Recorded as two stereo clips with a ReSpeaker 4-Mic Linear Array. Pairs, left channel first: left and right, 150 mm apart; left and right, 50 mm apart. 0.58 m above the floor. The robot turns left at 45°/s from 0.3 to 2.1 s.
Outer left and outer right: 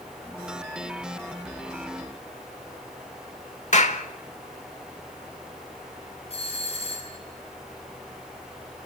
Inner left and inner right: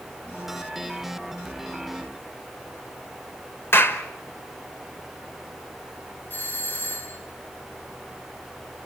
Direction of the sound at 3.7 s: 50° left (ahead or behind).